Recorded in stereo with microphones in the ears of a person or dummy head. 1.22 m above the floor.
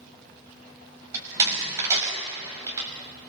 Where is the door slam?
20° right (ahead or behind), 5.5 m.